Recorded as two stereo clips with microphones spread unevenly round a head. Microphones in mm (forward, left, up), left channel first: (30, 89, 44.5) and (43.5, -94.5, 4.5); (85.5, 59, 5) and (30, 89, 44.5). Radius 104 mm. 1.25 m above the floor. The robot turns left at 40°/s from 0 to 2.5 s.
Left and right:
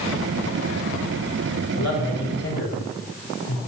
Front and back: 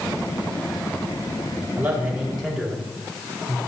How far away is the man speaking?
About 3.5 m.